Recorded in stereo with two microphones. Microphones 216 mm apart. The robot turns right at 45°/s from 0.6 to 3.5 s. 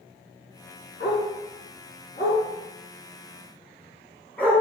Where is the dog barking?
50° left (ahead or behind), 3 m; by 4.6 s 10° left (ahead or behind), 3 m.